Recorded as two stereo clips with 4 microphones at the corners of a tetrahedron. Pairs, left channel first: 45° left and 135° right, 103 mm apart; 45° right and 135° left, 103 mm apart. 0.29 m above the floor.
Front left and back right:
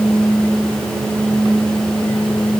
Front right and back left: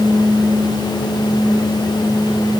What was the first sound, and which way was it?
Only background noise.